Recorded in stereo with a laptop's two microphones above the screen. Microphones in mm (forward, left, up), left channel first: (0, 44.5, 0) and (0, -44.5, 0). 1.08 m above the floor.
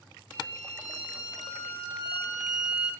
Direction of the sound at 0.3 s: 15° right (ahead or behind).